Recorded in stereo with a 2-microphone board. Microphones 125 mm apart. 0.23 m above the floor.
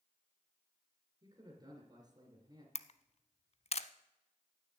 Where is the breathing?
I don't hear breathing.